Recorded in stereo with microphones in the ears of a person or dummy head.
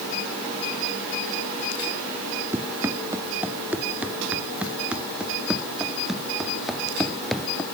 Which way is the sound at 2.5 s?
10° right (ahead or behind).